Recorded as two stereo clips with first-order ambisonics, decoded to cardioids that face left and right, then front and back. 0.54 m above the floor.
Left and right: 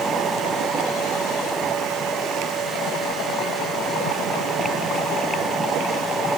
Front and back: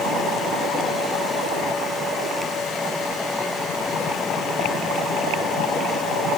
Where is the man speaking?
I don't hear a man speaking.